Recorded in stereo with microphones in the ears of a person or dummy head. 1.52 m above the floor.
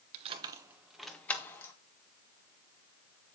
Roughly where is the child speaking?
No child speaking in this recording.